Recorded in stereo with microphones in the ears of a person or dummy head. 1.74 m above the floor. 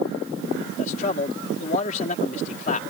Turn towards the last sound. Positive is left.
turn(degrees=45)  # may be behind; listen again after turning